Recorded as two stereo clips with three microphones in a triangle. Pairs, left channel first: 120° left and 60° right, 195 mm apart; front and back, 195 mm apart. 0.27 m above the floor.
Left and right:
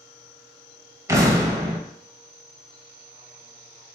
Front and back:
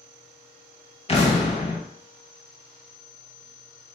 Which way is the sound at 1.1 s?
Straight ahead.